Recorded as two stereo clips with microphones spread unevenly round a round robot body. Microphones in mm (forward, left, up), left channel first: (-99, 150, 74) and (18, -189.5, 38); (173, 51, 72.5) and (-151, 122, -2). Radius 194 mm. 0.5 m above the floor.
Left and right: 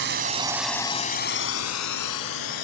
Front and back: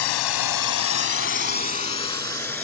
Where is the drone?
10° right; by 2.6 s 75° left.